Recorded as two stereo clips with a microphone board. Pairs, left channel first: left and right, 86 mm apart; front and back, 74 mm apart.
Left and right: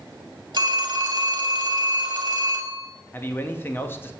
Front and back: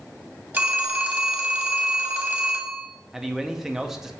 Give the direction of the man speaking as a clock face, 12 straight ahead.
9 o'clock.